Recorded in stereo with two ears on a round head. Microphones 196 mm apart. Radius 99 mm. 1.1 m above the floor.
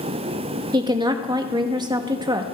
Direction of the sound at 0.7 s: 20° right (ahead or behind).